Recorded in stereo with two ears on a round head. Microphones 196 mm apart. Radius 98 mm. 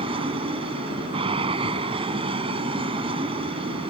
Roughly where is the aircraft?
Right.